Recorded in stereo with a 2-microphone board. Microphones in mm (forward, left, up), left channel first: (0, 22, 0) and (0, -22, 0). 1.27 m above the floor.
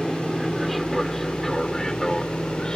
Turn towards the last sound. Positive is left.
turn(degrees=20)  # may be behind; listen again after turning